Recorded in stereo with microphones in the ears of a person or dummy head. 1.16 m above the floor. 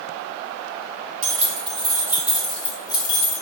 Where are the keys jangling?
40° right (ahead or behind), 1.0 m; by 3.4 s 40° left (ahead or behind), 0.9 m.